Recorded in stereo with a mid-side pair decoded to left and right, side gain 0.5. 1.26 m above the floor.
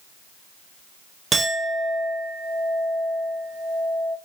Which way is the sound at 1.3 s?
40° right.